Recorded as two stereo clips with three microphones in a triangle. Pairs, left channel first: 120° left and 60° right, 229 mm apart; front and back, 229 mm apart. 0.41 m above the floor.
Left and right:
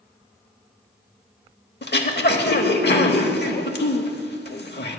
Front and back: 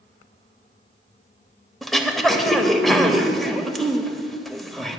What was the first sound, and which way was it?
Throat clearing, 90° left.